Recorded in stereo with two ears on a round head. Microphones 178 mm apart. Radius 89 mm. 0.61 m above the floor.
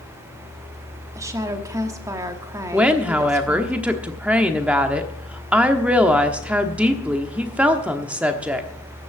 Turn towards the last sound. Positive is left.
turn(degrees=-5)  # may be behind; listen again after turning